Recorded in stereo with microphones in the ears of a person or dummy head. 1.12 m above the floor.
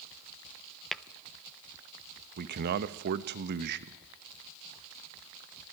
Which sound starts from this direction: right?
A man speaking, at 2.4 s.